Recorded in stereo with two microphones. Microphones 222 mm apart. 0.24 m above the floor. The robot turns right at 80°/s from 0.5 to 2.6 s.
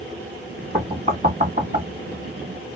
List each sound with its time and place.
0.7 s knocking: 20° right (ahead or behind), 1.3 m; by 1.9 s 35° right (ahead or behind), 1.3 m